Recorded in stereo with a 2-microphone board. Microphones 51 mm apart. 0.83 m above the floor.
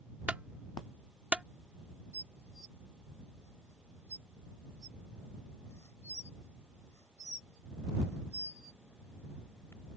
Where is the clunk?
25° right (ahead or behind).